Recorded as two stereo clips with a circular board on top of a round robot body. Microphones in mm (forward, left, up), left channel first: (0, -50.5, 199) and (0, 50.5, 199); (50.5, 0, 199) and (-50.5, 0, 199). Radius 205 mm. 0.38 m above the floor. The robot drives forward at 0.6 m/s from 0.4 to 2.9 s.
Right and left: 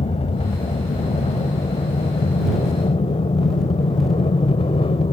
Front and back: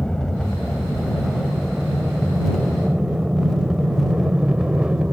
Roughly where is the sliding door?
No sliding door in this recording.